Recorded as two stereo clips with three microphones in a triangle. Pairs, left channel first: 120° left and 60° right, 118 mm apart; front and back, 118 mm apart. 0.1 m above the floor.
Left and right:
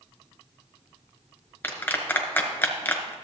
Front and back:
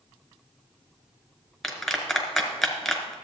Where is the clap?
85° left, 1.2 m.